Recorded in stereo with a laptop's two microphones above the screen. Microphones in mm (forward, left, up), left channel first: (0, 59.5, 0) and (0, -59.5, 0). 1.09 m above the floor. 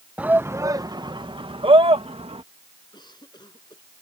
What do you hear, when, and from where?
0.2 s a shout: 10° right (ahead or behind); by 2.4 s 55° right (ahead or behind)
2.9 s a cough: 35° left (ahead or behind)